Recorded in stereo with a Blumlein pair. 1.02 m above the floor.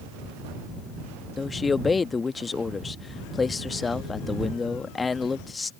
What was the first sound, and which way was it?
A man speaking, 15° left.